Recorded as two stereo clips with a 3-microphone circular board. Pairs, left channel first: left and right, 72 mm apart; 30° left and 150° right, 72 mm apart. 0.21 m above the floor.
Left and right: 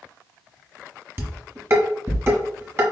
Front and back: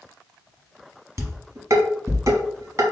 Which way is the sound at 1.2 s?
130° right.